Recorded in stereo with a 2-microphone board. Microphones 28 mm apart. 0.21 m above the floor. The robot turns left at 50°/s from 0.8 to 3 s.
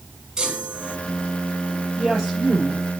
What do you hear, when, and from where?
0.4 s a chime: 20° right (ahead or behind), 2.0 m; by 1.0 s 25° right (ahead or behind), 2.0 m
2.0 s a woman speaking: 20° right, 5.5 m; by 2.8 s 65° right, 5.5 m